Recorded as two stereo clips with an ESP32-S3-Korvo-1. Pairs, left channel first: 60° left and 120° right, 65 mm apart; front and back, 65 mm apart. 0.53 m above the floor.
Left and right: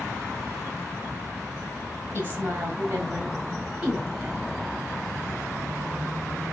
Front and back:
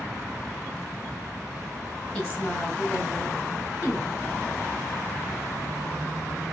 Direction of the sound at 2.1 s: 65° right.